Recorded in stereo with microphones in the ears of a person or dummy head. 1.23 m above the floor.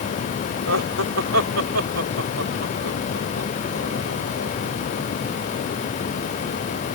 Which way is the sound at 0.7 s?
80° right.